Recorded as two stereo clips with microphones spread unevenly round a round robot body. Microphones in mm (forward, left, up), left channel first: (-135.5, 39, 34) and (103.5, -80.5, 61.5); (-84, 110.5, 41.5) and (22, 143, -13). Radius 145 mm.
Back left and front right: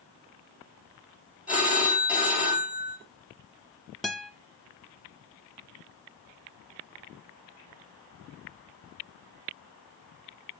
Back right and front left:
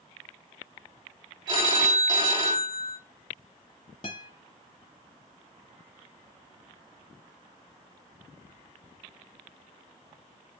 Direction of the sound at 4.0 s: 115° right.